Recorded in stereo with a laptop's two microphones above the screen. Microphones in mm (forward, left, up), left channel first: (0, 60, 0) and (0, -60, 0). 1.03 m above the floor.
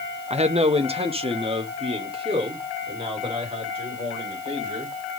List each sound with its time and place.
0.3 s a man speaking: 65° right (ahead or behind), 0.7 m; by 4.9 s 45° right (ahead or behind), 5.5 m